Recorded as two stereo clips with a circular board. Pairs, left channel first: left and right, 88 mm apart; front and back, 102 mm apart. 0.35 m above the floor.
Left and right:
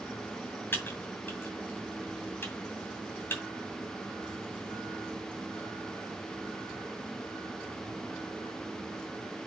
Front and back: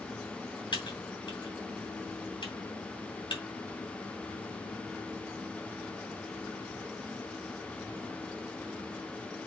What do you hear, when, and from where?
0.7 s typing on a keyboard: 30° left, 2.5 m